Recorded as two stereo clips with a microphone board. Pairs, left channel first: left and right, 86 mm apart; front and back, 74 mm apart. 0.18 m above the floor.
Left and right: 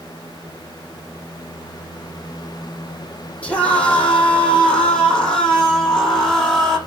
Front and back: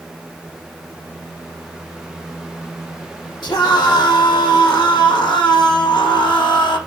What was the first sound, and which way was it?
A scream, 15° left.